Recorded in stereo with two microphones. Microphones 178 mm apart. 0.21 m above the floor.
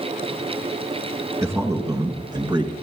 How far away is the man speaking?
About 2 m.